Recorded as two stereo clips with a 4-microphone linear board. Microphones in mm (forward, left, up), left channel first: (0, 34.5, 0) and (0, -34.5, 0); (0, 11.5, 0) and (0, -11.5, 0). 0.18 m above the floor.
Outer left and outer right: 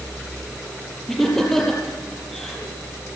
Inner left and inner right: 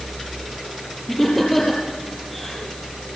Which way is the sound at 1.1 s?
5° left (ahead or behind).